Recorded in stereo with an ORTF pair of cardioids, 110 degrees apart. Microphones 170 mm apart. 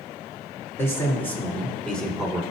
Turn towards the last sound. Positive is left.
turn(degrees=0)